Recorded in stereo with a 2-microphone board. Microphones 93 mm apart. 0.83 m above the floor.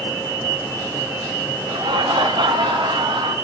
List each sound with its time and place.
1.7 s laughter: 60° right (ahead or behind), 0.8 m